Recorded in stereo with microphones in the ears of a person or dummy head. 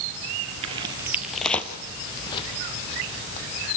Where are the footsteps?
30° right (ahead or behind), 1.7 m; by 3.7 s 40° left (ahead or behind), 4 m.